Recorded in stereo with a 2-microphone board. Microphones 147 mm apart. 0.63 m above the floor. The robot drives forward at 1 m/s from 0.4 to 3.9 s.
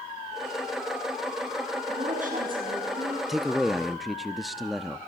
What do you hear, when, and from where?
1.9 s a woman speaking: 55° right (ahead or behind), 6 m; by 3.2 s 65° right (ahead or behind), 5.5 m
3.3 s a man speaking: centre (ahead or behind), 0.6 m